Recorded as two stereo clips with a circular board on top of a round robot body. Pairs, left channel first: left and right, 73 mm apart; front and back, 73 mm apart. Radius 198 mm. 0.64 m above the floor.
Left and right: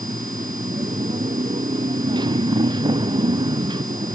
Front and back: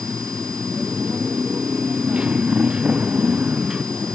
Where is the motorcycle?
105° right; by 4.2 s 100° right.